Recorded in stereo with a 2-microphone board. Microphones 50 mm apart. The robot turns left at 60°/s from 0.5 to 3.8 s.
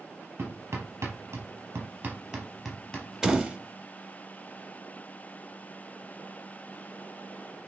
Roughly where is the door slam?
Centre.